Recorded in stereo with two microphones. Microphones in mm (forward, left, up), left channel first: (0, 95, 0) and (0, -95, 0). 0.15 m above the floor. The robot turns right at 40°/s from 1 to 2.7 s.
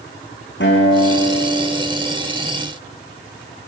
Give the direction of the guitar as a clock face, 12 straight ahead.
8 o'clock.